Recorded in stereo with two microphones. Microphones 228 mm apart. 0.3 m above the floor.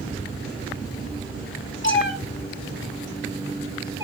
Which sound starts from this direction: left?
A cat meowing, at 1.8 s.